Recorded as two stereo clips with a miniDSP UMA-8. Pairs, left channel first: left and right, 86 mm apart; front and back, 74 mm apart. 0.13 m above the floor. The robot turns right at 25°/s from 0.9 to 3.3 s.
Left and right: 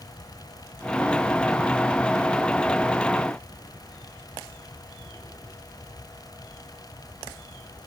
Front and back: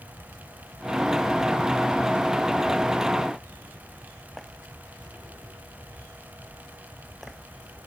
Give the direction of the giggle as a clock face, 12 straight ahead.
I don't hear a giggle.